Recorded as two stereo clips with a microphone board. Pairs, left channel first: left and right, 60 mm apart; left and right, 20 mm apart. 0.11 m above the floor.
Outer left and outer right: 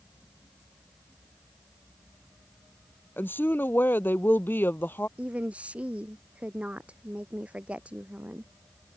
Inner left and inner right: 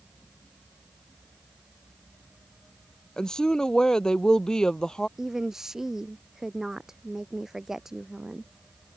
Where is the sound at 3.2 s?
35° left (ahead or behind).